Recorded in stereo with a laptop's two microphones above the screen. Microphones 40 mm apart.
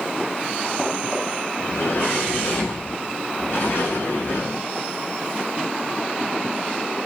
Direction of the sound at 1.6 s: 65° left (ahead or behind).